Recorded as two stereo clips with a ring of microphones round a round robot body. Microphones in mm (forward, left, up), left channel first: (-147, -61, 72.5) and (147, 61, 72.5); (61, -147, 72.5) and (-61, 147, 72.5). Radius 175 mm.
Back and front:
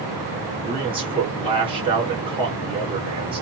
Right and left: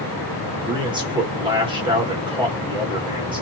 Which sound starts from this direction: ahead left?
A man speaking, at 0.7 s.